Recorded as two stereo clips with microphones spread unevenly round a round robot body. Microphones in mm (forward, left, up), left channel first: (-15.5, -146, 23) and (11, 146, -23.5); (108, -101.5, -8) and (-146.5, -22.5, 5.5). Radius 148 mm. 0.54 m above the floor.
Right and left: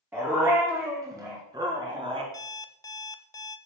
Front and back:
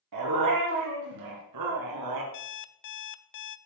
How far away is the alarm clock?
About 0.5 m.